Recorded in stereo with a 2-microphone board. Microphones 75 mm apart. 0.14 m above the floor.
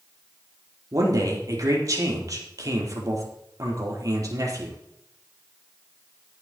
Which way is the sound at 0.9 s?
50° right (ahead or behind).